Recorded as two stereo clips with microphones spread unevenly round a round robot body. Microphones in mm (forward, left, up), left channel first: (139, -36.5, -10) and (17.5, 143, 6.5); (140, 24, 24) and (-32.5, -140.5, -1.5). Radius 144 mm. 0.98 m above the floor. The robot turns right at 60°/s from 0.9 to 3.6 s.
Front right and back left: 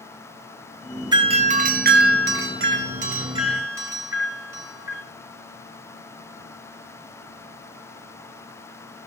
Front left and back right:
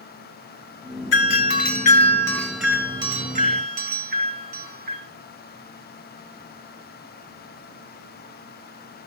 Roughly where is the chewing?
I don't hear chewing.